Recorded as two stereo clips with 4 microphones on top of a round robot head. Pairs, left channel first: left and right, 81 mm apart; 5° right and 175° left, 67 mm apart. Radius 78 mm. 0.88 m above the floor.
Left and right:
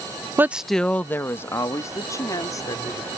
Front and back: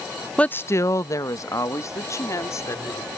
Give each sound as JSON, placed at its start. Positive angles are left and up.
{"t": 0.4, "sound": "a woman speaking", "azimuth_deg": -65}